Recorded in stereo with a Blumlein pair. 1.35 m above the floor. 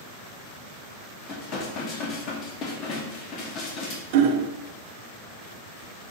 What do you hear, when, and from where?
1.3 s dishes clattering: 35° left, 1.7 m
4.1 s hammering: 50° right, 0.6 m